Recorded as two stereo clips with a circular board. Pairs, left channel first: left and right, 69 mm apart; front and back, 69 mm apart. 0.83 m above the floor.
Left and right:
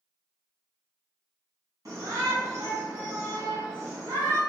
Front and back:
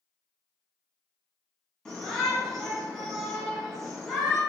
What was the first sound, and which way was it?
A shout, 75° right.